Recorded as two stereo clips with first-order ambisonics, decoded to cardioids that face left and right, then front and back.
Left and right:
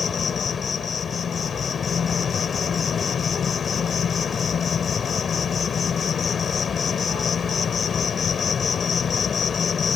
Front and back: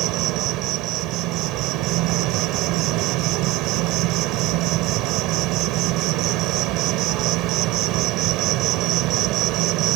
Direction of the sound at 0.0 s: 155° left.